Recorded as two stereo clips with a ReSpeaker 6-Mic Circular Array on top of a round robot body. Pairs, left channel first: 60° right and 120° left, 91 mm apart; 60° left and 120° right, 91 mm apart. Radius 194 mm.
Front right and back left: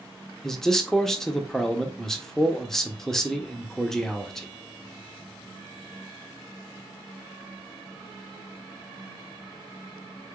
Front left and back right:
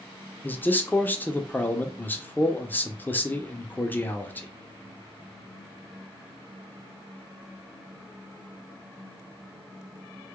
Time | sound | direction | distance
0.4 | a man speaking | 20° left | 0.9 m